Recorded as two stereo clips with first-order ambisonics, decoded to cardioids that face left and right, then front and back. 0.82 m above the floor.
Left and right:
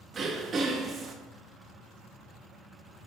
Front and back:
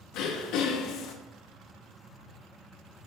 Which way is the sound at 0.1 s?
25° right.